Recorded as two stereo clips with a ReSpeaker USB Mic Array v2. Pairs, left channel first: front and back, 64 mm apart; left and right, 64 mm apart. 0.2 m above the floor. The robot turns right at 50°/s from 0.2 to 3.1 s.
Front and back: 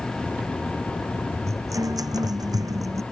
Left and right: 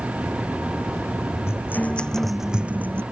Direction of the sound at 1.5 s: 140° left.